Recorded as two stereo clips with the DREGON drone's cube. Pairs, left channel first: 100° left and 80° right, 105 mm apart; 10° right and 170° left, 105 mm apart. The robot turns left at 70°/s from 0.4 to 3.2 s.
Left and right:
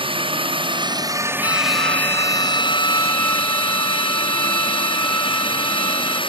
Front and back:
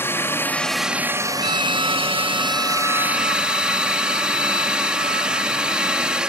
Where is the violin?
155° left; by 6.2 s 30° left.